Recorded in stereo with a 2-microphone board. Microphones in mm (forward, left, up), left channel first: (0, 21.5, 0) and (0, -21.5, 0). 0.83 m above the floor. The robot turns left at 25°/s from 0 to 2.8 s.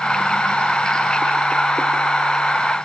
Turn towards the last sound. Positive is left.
No sound to turn to.